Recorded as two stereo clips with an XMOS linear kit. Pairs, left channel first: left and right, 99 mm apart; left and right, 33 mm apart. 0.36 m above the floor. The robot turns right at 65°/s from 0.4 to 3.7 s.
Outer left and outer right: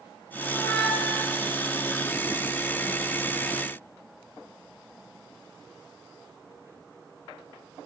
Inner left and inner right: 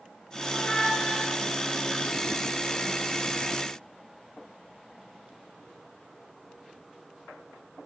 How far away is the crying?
I don't hear crying.